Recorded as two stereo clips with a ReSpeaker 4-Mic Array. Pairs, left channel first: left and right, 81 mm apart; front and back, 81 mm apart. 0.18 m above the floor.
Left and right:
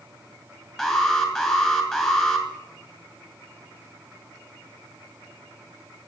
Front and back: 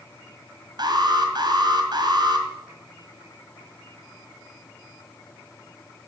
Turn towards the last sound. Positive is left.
turn(degrees=170)